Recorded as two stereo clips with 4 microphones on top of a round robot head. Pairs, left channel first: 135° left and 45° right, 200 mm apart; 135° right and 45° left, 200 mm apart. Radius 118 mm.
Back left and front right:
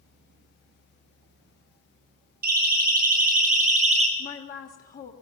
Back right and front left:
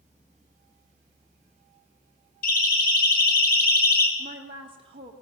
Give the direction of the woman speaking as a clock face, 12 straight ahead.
9 o'clock.